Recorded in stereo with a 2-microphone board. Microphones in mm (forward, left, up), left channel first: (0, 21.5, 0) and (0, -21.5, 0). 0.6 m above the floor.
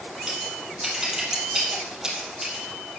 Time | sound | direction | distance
0.3 | scissors | 10° right (ahead or behind) | 3.5 m